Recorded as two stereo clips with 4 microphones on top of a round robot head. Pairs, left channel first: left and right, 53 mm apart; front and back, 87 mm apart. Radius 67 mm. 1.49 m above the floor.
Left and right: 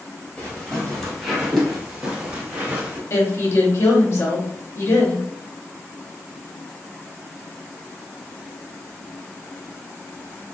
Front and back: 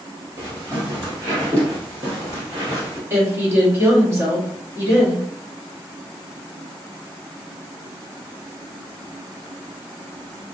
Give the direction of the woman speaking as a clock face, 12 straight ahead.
8 o'clock.